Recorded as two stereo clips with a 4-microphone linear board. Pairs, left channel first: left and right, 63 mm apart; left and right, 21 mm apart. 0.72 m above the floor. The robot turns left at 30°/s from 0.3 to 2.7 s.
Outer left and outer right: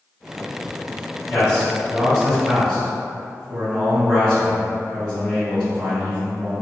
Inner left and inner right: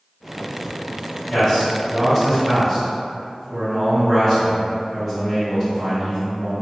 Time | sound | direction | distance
1.3 | a man speaking | 40° left | 1.3 m